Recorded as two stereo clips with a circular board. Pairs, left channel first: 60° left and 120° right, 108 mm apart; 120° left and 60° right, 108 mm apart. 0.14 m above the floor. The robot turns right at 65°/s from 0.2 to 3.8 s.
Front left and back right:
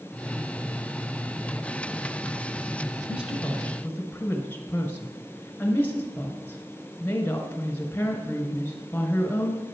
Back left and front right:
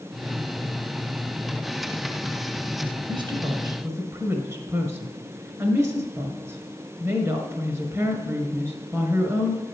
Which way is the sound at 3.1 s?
55° right.